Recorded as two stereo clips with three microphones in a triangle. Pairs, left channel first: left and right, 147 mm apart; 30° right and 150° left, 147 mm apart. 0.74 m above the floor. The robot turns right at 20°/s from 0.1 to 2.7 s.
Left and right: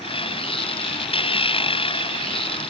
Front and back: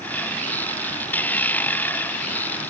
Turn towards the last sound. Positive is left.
No sound to turn to.